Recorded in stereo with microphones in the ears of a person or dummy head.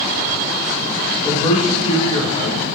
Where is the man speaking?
35° left (ahead or behind), 1.1 m.